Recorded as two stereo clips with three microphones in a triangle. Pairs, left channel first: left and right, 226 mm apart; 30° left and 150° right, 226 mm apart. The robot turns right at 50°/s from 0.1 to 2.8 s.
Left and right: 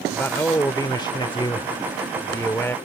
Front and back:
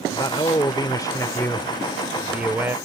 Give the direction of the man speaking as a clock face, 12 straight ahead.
11 o'clock.